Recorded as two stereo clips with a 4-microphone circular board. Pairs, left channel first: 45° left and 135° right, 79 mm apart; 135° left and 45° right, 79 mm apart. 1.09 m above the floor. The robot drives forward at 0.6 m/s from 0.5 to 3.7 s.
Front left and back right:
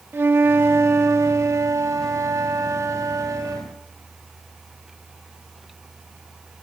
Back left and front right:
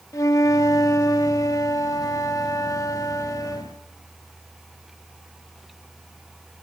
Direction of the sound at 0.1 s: 170° left.